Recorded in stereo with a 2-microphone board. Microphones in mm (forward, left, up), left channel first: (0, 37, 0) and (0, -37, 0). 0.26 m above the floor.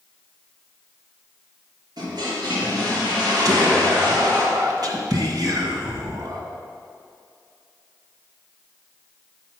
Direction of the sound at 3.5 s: 60° right (ahead or behind).